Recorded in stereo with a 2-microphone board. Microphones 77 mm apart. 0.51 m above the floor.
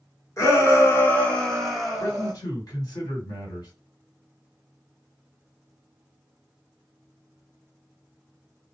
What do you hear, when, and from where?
0.4 s a shout: 40° left (ahead or behind), 1.1 m; by 2.3 s 15° right (ahead or behind), 1.1 m
2.0 s a man speaking: 55° left (ahead or behind), 2 m